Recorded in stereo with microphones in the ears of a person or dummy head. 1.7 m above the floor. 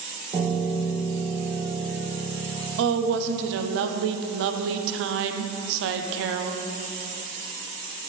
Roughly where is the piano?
Right.